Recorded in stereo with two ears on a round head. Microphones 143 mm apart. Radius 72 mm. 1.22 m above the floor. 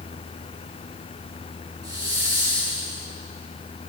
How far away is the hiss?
About 5.5 m.